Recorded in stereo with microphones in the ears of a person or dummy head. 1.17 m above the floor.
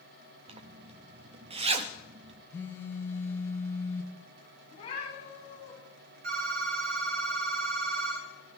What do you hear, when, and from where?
0.5 s a zipper: 35° right (ahead or behind), 0.7 m
2.5 s a phone buzzing: 15° left (ahead or behind), 1.3 m
4.7 s a cat meowing: 35° left (ahead or behind), 6 m
6.2 s a phone ringing: 55° right (ahead or behind), 2.5 m